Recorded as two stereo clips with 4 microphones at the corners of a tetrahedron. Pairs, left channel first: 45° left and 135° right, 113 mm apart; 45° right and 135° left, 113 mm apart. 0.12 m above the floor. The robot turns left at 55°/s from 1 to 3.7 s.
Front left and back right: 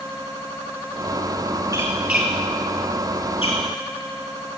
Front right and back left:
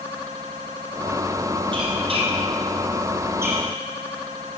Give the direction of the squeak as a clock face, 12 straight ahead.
6 o'clock.